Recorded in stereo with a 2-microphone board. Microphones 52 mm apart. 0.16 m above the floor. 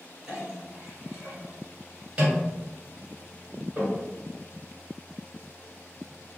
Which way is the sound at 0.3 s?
20° right (ahead or behind).